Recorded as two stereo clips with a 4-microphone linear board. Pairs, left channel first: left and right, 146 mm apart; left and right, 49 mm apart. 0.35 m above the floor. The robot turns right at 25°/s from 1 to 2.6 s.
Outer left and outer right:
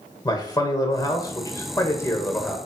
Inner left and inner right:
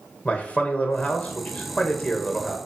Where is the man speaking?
25° left (ahead or behind), 1.3 m; by 2.6 s 15° left (ahead or behind), 1.3 m.